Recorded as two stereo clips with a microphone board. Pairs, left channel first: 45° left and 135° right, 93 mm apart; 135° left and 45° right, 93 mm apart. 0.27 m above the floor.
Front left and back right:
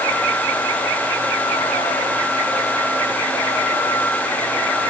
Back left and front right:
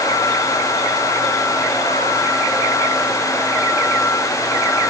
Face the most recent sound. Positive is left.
No sound to turn to.